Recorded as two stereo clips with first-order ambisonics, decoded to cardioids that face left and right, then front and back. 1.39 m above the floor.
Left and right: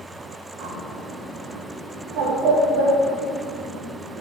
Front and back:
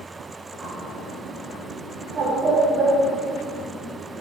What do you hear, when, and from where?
0.6 s a bird: 110° right, 3 m